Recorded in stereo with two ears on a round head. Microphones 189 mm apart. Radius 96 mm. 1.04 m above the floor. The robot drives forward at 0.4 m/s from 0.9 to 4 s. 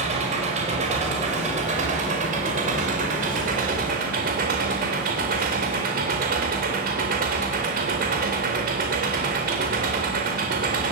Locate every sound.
0.0 s an engine running: 30° right (ahead or behind), 5 m; by 10.9 s 40° right (ahead or behind), 4 m